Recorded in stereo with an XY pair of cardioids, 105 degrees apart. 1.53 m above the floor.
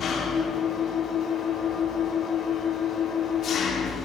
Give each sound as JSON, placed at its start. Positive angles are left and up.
{"t": 0.0, "sound": "an engine running", "azimuth_deg": 65, "distance_m": 3.0}